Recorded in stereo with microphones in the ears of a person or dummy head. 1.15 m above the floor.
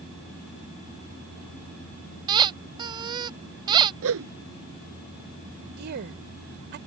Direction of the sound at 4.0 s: 75° right (ahead or behind).